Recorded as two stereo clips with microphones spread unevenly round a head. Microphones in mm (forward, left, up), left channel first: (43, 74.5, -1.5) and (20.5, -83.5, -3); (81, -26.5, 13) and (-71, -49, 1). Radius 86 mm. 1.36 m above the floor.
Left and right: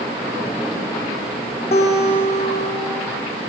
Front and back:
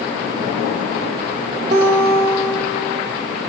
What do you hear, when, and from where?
1.7 s a guitar: 140° left, 1.2 m